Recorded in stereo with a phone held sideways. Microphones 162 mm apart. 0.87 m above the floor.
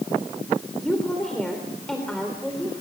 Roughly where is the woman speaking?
Centre.